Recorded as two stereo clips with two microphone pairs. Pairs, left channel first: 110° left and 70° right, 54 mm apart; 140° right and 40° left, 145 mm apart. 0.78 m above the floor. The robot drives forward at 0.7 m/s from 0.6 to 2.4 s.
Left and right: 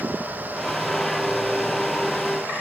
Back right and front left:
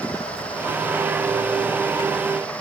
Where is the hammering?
I don't hear hammering.